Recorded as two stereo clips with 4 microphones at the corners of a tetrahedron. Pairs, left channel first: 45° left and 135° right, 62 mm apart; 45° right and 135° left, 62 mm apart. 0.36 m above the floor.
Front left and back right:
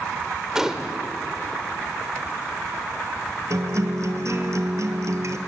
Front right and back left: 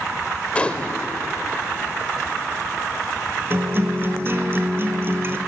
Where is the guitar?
175° right, 1.6 m.